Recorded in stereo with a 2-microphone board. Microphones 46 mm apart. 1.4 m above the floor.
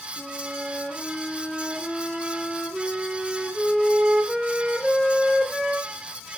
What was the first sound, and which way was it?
A flute, 5° left (ahead or behind).